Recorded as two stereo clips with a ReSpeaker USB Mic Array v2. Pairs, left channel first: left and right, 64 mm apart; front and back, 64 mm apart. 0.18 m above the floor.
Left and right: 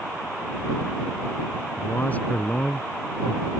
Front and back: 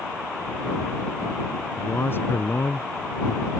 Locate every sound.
1.8 s a man speaking: 40° left; by 3.5 s 5° left